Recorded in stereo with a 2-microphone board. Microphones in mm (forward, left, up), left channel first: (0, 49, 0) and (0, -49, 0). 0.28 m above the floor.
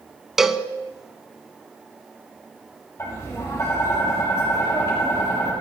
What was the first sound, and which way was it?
A cowbell, 5° right (ahead or behind).